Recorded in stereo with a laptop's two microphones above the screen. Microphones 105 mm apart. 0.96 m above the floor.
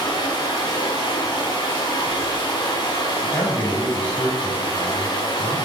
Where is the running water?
50° left (ahead or behind), 1.2 m.